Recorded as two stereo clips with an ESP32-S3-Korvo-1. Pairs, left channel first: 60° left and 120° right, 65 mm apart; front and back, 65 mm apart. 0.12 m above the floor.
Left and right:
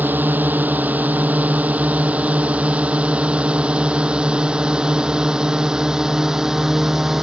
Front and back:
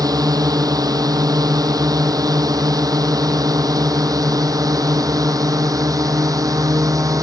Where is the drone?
Straight behind; by 7.2 s 155° left.